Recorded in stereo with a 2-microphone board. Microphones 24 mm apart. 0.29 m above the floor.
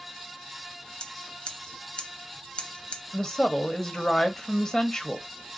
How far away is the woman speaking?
About 1.2 m.